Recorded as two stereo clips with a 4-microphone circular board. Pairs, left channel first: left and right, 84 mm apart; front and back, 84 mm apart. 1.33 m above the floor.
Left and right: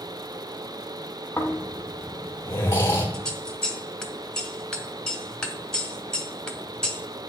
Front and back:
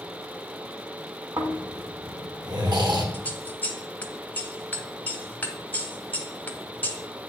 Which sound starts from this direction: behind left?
Snoring, at 1.4 s.